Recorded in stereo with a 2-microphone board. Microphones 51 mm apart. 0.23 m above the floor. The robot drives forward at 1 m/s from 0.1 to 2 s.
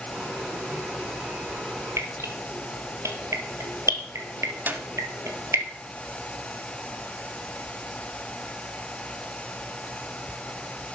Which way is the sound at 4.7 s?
40° right (ahead or behind).